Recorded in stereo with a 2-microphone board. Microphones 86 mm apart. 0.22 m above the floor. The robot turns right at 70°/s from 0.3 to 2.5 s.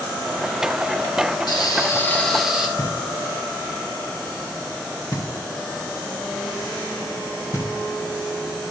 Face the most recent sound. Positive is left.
turn(degrees=45)  # may be behind; listen again after turning